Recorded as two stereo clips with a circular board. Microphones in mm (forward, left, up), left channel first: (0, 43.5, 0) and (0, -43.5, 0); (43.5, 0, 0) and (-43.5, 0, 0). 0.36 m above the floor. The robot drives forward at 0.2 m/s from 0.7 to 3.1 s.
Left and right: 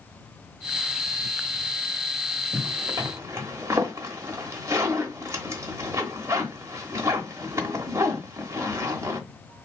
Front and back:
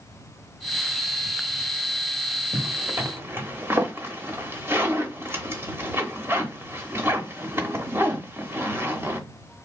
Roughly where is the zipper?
Behind right.